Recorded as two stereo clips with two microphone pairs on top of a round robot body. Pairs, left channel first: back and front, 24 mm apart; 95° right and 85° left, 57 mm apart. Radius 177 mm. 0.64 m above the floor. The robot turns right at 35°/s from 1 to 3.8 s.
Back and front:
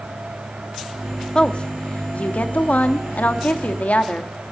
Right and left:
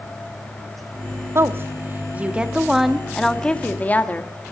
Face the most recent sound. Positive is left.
turn(degrees=-160)